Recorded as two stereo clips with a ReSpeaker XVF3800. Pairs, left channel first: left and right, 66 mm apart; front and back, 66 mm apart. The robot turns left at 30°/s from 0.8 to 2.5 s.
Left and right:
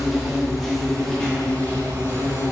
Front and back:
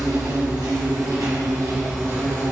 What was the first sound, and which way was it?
An insect, straight behind.